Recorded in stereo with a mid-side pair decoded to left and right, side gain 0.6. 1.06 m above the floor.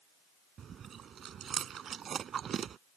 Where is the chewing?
40° right.